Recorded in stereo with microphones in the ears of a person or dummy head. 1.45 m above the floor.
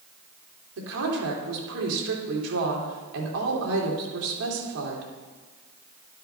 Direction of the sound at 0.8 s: 85° right.